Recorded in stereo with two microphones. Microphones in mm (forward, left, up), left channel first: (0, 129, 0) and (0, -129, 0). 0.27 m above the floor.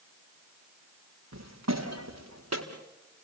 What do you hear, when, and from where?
1.3 s footsteps: 85° right, 3.5 m; by 2.6 s 75° right (ahead or behind), 4 m